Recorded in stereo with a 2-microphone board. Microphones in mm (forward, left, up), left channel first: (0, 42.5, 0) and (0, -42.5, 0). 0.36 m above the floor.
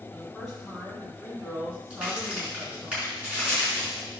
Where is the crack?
15° right (ahead or behind), 4.5 m.